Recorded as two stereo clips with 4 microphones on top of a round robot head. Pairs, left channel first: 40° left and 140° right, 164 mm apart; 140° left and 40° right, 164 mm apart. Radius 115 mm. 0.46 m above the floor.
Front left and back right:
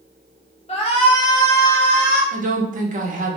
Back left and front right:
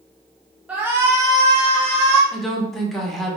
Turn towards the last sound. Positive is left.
turn(degrees=-130)